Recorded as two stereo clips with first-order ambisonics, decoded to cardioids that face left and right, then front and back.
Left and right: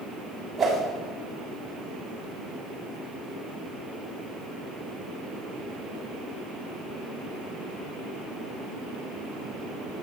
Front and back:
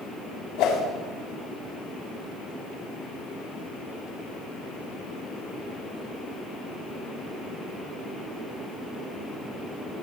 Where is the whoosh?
15° right, 6.5 m.